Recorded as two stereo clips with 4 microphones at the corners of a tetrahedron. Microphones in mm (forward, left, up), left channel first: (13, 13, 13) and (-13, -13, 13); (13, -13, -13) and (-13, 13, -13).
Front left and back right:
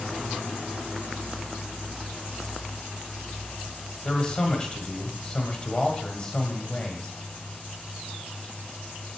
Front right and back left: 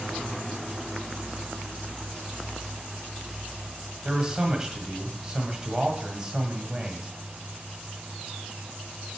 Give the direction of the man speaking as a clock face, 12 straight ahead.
9 o'clock.